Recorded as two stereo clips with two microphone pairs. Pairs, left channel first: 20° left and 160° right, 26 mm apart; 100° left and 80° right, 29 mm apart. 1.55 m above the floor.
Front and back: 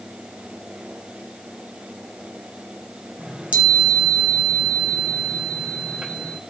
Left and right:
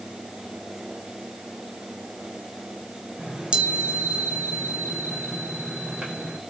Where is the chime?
130° right, 5 m.